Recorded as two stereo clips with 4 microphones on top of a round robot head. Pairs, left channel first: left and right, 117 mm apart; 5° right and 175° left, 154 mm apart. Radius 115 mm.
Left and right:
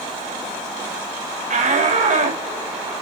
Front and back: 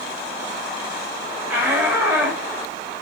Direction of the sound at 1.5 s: 100° right.